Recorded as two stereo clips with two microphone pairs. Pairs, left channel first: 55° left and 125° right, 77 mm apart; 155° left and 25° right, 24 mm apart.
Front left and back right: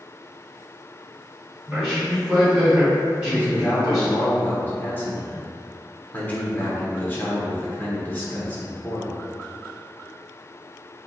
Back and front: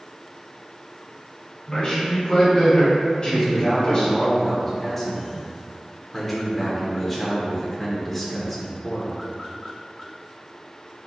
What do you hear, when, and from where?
1.7 s a man speaking: 160° left, 1.2 m
3.2 s a man speaking: 85° left, 0.9 m